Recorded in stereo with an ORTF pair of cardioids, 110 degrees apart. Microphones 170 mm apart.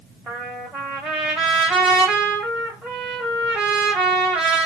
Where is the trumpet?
5° right, 1.0 m.